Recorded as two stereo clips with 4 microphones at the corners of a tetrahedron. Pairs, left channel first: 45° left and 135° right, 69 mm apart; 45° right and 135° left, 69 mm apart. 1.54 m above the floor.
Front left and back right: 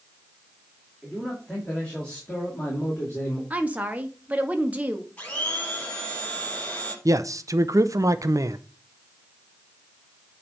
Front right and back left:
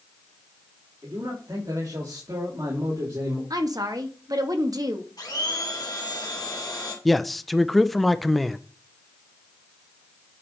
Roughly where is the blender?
Ahead right.